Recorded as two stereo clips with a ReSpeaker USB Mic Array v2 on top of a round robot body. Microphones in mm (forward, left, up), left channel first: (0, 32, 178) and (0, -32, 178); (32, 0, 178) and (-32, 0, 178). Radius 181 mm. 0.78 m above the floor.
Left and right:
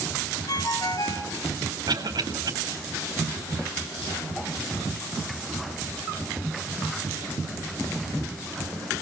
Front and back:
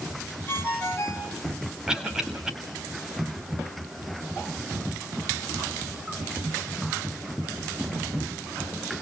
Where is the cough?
100° right, 4 m.